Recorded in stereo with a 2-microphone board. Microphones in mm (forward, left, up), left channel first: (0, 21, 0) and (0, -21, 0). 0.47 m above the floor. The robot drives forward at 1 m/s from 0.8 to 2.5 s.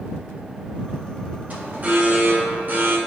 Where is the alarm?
40° right (ahead or behind), 2 m; by 3.0 s 45° right (ahead or behind), 1.9 m.